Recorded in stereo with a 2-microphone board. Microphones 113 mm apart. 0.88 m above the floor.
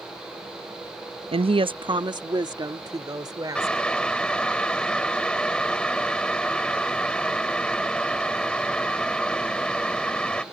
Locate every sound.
1.3 s a woman speaking: 55° right (ahead or behind); by 3.9 s 30° right (ahead or behind)
3.5 s boiling: 10° left (ahead or behind)